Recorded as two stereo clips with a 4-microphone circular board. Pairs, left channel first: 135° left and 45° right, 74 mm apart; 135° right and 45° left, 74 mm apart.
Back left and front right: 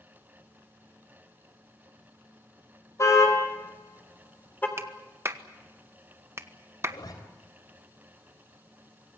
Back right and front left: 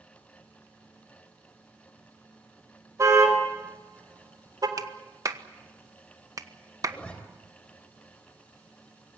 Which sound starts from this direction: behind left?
A zipper, at 6.8 s.